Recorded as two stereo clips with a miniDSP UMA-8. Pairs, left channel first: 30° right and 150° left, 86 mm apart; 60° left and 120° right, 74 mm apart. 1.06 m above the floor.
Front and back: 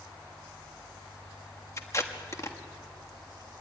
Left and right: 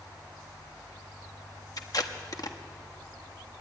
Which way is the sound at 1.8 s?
25° left.